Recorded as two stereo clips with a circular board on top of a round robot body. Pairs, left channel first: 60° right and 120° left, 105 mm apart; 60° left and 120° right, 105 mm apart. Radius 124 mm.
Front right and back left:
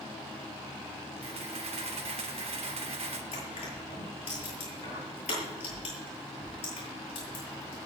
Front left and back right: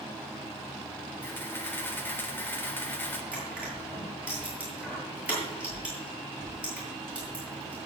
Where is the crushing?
40° right, 9.5 m.